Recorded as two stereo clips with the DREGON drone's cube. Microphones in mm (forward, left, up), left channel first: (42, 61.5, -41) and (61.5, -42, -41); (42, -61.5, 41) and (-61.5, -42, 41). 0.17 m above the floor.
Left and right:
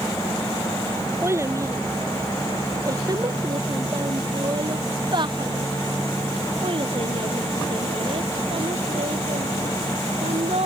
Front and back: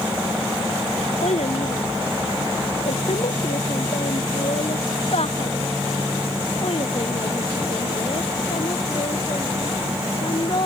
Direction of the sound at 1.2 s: 15° right.